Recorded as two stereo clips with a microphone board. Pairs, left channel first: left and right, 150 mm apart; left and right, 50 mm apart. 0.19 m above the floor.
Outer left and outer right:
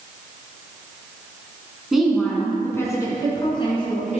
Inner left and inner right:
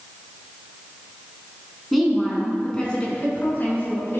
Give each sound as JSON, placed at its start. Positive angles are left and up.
{"t": 1.9, "sound": "a woman speaking", "side_deg": -5, "distance_m": 2.0}